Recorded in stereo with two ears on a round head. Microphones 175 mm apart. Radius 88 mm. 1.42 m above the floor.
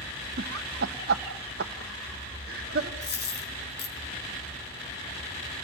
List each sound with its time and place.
0.4 s laughter: 55° right (ahead or behind), 1.2 m
3.0 s a dropped coin: 55° left (ahead or behind), 5 m